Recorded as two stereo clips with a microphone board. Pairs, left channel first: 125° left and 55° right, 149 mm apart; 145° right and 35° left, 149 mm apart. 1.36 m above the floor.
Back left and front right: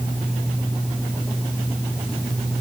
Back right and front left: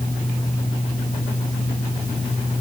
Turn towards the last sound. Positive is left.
No sound to turn to.